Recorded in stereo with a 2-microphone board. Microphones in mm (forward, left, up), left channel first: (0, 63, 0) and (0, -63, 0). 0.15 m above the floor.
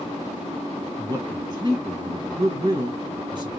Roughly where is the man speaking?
Right.